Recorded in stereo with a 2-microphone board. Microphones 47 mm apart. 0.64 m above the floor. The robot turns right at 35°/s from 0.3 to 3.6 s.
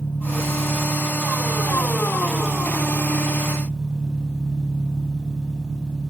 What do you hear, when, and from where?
0.0 s an engine running: 60° left, 3.5 m; by 6.1 s 175° left, 3.5 m